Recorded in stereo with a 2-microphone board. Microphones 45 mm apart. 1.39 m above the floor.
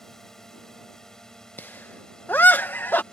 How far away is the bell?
No bell in this recording.